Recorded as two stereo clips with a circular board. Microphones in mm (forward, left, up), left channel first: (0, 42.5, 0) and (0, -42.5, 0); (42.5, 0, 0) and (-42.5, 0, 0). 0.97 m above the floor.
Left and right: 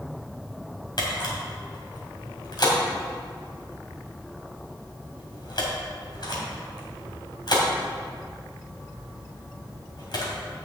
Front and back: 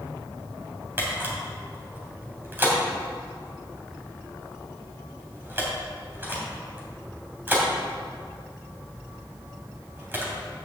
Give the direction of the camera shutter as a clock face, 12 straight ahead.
8 o'clock.